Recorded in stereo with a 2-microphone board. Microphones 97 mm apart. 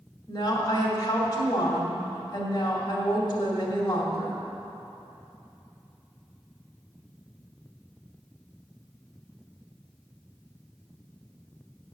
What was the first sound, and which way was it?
A woman speaking, 40° left (ahead or behind).